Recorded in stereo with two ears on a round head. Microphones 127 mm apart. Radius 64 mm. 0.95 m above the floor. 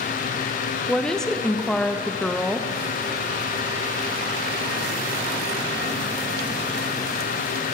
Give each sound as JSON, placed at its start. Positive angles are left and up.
{"t": 0.9, "sound": "a woman speaking", "side_deg": 5, "distance_m": 0.6}